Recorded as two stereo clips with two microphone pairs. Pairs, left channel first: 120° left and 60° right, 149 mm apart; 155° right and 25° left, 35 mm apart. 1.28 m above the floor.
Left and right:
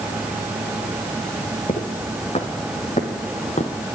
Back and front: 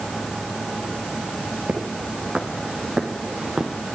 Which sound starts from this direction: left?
Footsteps, at 1.7 s.